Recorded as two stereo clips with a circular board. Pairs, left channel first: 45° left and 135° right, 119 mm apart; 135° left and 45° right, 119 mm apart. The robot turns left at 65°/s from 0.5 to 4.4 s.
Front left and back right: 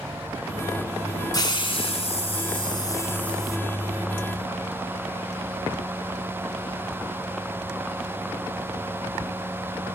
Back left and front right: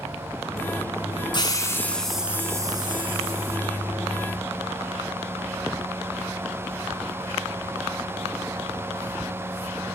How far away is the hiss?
About 1.1 m.